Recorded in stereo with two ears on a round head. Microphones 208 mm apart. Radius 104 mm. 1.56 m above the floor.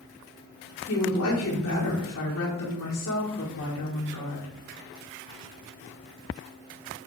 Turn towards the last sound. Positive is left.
turn(degrees=60)  # may be behind; listen again after turning